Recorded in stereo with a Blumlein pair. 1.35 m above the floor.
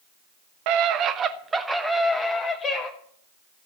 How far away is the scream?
About 1.1 m.